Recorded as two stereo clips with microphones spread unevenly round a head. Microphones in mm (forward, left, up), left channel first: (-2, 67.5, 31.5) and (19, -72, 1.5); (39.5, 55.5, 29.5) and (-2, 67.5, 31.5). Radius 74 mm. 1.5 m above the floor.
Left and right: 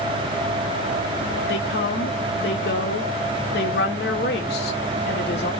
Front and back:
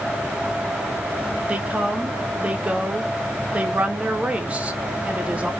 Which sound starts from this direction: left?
A woman speaking, at 1.5 s.